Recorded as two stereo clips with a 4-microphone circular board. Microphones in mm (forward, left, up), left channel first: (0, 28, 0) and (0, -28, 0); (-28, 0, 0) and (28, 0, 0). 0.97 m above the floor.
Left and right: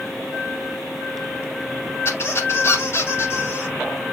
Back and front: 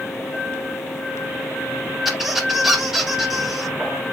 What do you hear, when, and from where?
2.0 s a squeak: 85° left, 1.2 m